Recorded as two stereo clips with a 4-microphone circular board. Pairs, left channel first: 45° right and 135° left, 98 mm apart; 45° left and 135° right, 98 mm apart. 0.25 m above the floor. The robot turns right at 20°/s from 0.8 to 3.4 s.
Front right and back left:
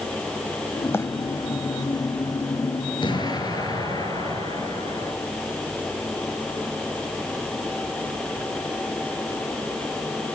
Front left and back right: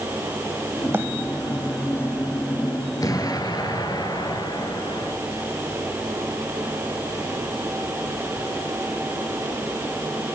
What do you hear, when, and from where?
0.9 s a bird: 90° right, 1.4 m; by 1.1 s 85° right, 1.4 m
3.0 s an explosion: 10° right, 3 m; by 5.1 s straight ahead, 3 m